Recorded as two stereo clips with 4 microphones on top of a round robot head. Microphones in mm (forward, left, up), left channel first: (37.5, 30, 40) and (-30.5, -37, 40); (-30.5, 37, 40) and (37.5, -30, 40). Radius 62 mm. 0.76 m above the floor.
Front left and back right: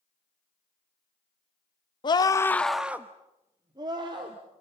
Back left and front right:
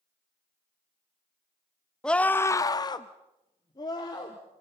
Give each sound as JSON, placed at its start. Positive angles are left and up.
{"t": 2.0, "sound": "a scream", "azimuth_deg": 55, "distance_m": 1.2}